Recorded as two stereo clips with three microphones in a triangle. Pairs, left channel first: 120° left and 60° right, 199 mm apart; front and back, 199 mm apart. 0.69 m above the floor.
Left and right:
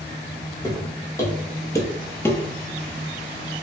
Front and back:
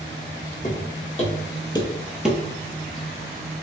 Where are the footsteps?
45° left, 1.5 m; by 2.4 s 155° left, 0.6 m.